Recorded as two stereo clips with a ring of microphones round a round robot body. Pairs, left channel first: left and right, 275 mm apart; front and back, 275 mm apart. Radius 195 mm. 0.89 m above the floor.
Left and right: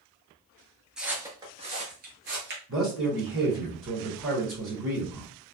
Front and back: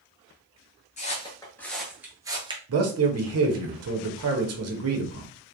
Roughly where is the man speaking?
Behind right.